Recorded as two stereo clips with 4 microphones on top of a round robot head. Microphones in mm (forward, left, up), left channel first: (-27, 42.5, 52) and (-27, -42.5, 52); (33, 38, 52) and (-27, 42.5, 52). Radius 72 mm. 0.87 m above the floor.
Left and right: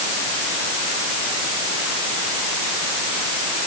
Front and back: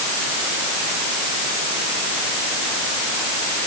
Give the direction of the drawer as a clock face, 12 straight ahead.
No drawer in this recording.